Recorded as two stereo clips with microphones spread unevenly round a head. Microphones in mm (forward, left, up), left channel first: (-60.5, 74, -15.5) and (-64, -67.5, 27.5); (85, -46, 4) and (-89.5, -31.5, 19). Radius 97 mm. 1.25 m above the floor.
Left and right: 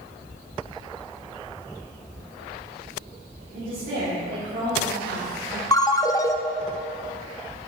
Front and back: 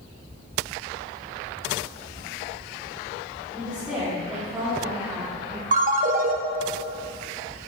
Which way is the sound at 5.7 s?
165° left.